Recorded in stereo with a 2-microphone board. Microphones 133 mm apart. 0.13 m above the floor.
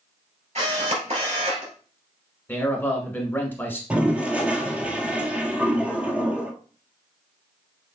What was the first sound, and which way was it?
A camera shutter, 55° right (ahead or behind).